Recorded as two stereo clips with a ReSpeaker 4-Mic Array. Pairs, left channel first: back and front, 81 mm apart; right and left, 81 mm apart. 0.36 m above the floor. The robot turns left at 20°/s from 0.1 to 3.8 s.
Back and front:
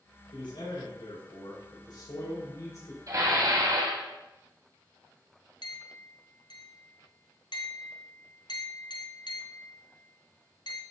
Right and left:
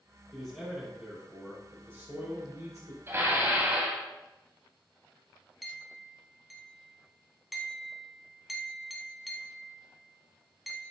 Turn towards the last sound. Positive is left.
turn(degrees=180)